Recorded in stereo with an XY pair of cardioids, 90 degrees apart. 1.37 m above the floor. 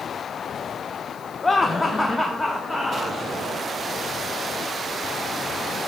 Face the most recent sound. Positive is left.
turn(degrees=10)